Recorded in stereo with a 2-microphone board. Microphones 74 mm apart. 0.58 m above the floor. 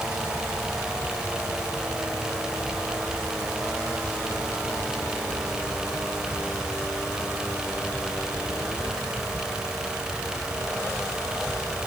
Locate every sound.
Only background noise.